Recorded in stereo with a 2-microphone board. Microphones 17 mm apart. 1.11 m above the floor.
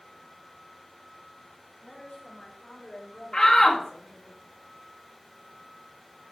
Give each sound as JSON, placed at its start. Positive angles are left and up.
{"t": 1.8, "sound": "a woman speaking", "side_deg": 50, "distance_m": 5.5}
{"t": 3.3, "sound": "a shout", "side_deg": 45, "distance_m": 2.0}